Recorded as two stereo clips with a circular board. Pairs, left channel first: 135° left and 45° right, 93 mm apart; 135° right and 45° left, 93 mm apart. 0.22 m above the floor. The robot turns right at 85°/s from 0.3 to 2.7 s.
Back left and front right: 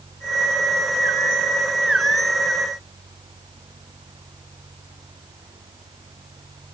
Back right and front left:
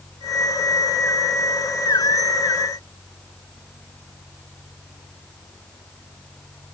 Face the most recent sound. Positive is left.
No sound to turn to.